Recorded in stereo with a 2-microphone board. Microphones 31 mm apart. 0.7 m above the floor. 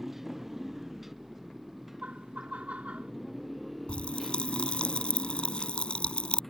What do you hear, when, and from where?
0.0 s a motorcycle: 10° right (ahead or behind); by 6.5 s 5° left (ahead or behind)
2.0 s laughter: 55° right (ahead or behind)
3.9 s a pop: 35° left (ahead or behind)